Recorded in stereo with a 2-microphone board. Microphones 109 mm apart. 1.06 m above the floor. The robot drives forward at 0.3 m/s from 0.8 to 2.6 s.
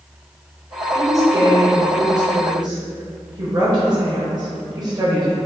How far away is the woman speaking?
About 1.1 m.